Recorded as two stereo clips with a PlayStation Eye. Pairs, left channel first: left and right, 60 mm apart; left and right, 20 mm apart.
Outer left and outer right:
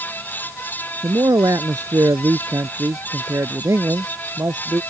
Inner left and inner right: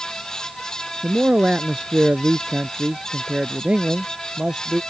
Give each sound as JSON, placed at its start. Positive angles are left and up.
{"t": 1.0, "sound": "a man speaking", "side_deg": -75}